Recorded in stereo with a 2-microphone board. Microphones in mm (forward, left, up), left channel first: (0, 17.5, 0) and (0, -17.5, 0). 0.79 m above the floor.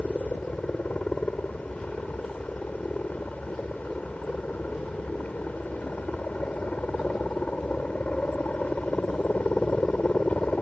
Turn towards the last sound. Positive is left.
turn(degrees=45)  # may be behind; listen again after turning